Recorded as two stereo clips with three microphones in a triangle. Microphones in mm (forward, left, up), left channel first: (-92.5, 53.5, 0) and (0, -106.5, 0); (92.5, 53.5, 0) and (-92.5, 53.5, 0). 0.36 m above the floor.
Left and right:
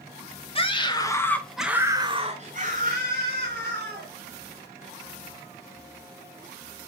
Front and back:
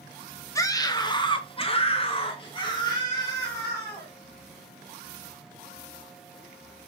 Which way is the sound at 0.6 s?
70° left.